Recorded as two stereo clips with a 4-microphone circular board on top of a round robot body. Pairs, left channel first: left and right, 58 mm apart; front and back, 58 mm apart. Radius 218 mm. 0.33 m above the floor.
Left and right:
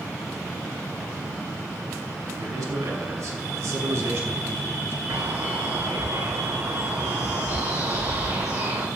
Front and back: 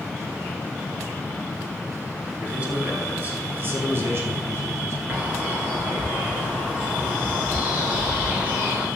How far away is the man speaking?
About 5 m.